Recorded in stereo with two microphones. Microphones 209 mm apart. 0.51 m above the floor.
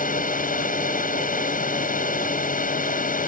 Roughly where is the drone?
Left.